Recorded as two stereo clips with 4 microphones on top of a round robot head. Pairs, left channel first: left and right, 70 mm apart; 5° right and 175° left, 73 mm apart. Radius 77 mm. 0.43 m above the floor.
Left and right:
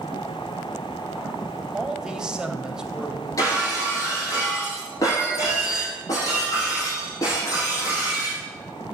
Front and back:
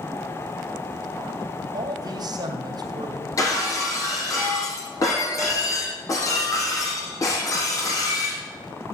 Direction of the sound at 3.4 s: 40° left.